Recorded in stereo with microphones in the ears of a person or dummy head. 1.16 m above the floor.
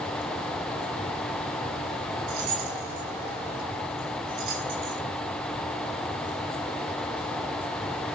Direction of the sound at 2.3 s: 45° right (ahead or behind).